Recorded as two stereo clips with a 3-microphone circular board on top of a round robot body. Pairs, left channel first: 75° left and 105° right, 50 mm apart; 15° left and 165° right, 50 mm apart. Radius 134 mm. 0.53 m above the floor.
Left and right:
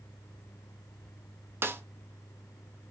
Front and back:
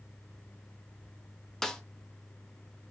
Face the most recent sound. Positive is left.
turn(degrees=-65)